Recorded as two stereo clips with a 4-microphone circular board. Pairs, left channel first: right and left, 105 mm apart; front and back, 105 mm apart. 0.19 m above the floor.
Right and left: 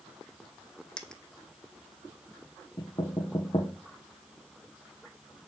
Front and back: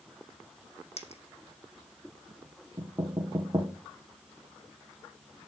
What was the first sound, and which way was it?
A dropped coin, 5° right.